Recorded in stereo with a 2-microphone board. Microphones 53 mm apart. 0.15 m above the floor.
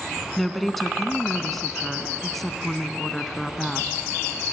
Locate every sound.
0.4 s a woman speaking: 5° left (ahead or behind), 1.1 m